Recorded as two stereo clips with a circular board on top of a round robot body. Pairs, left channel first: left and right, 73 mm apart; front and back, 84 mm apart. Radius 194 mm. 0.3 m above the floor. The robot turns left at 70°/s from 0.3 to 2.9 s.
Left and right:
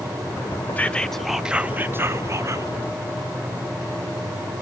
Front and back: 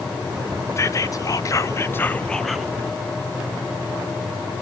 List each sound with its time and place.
0.8 s whispering: 35° left, 1.1 m; by 2.7 s 100° right, 1.1 m